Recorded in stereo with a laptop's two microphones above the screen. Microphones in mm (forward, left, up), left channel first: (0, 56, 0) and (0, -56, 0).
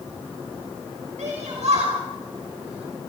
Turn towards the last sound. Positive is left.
turn(degrees=-65)  # may be behind; listen again after turning